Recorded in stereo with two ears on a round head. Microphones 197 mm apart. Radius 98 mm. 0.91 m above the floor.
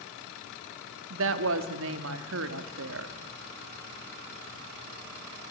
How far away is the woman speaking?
About 1.5 m.